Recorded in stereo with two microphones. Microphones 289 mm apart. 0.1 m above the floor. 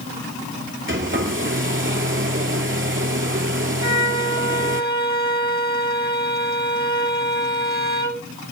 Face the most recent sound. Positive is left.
turn(degrees=-70)  # may be behind; listen again after turning